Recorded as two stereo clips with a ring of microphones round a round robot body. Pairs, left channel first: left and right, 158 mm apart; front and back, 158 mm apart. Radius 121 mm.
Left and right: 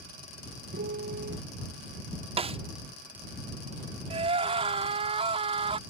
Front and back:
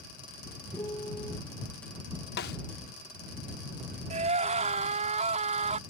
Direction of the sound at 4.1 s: 140° right.